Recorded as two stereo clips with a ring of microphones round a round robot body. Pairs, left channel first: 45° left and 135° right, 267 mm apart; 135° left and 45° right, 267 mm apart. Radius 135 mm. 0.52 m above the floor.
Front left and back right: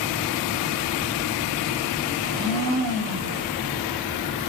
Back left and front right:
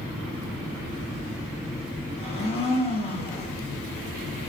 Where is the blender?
155° right, 0.8 m.